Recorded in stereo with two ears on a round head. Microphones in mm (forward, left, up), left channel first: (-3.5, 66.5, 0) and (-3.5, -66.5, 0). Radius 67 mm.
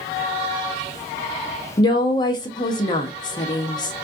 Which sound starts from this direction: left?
A woman speaking, at 1.8 s.